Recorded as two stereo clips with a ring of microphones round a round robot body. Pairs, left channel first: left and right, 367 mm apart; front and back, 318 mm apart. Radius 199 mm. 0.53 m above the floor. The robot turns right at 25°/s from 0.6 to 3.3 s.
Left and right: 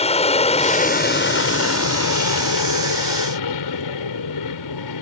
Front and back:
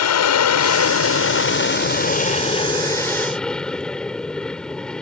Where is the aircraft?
20° left; by 5.0 s 85° left.